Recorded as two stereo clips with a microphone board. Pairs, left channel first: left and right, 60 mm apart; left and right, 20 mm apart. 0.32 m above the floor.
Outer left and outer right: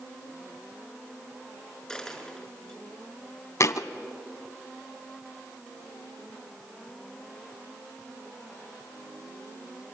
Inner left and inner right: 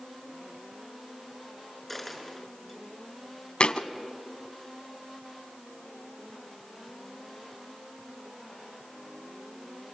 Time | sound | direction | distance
1.9 | a dropped coin | 10° left (ahead or behind) | 6.5 m
3.6 | a thud | 55° left (ahead or behind) | 0.8 m